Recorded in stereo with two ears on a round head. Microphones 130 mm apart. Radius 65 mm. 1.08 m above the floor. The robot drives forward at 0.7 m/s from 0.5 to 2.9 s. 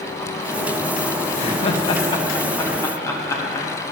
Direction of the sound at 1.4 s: 45° left (ahead or behind).